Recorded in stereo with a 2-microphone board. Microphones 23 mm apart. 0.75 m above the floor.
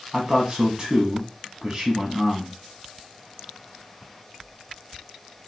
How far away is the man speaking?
About 0.8 m.